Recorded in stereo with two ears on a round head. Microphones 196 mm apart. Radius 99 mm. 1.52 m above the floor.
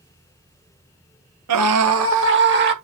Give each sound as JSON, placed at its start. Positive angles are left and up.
{"t": 1.5, "sound": "a scream", "side_deg": -80, "distance_m": 1.8}